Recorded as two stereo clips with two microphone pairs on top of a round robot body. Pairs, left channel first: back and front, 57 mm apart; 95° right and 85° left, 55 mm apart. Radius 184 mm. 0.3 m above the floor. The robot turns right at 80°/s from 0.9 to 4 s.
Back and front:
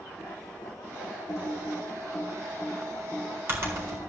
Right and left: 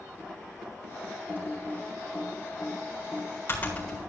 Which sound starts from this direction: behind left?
Typing on a keyboard, at 1.3 s.